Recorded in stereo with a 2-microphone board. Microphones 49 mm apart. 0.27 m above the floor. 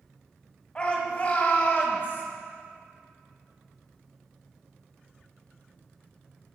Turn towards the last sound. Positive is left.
turn(degrees=50)  # may be behind; listen again after turning